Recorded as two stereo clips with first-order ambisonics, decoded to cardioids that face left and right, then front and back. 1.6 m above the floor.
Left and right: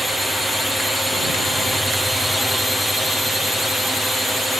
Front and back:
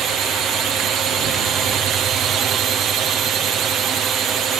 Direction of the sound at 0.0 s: Straight behind.